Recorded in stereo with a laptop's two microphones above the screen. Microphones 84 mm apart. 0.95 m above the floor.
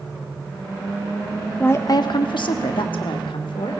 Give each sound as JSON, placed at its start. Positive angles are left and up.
{"t": 1.6, "sound": "a woman speaking", "side_deg": 15, "distance_m": 0.5}